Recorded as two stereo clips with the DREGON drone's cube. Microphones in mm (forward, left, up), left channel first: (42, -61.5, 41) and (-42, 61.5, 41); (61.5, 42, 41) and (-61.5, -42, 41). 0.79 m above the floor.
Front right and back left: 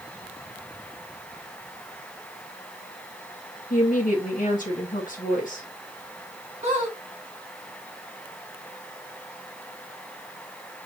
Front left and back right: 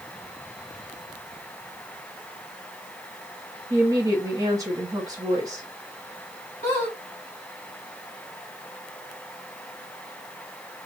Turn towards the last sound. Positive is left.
turn(degrees=80)